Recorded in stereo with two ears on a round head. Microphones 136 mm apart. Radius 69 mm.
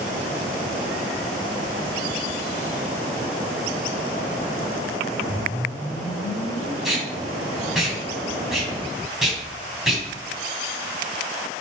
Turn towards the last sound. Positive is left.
turn(degrees=-5)  # may be behind; listen again after turning